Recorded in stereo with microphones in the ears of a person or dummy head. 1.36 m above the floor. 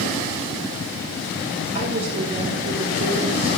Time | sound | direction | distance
1.8 | a woman speaking | 40° right (ahead or behind) | 4.5 m